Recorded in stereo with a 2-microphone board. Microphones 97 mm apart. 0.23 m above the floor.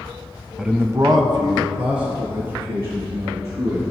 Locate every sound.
0.6 s a man speaking: 5° right (ahead or behind), 1.0 m; by 3.8 s 70° right (ahead or behind), 5 m